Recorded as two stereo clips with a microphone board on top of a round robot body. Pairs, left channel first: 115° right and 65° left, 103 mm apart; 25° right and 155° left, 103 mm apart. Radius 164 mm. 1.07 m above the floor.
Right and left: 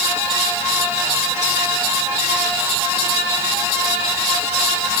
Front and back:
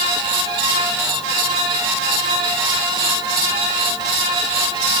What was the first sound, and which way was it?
Only background noise.